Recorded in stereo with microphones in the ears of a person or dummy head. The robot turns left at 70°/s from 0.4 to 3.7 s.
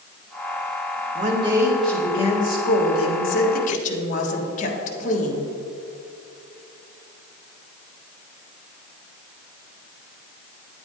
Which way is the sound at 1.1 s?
130° right.